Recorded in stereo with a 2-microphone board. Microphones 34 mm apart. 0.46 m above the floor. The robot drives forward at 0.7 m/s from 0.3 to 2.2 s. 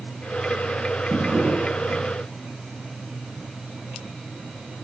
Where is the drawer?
75° right (ahead or behind), 7.5 m; by 2.0 s 80° right, 7 m.